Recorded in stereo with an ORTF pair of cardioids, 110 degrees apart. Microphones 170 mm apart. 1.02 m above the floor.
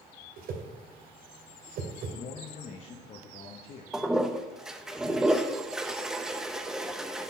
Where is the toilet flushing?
5° right, 0.7 m.